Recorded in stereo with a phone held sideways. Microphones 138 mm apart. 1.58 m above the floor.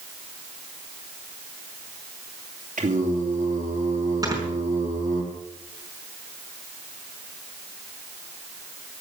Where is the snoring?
25° right (ahead or behind), 5 m.